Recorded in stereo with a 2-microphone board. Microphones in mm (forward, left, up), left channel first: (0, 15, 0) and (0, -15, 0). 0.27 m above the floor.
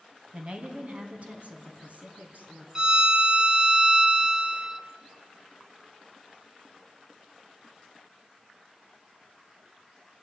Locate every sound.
0.3 s a woman speaking: 30° right (ahead or behind), 2 m; by 2.6 s 50° right (ahead or behind), 4 m
2.8 s a violin: 30° right (ahead or behind), 0.6 m